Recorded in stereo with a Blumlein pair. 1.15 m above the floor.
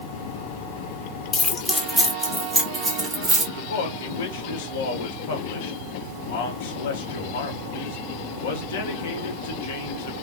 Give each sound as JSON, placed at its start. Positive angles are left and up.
{"t": 1.3, "sound": "keys jangling", "azimuth_deg": 20, "distance_m": 0.9}
{"t": 3.5, "sound": "a man speaking", "azimuth_deg": 55, "distance_m": 1.2}